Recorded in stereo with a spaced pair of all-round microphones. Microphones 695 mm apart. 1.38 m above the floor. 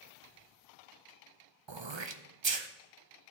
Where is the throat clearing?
40° right (ahead or behind), 0.7 m.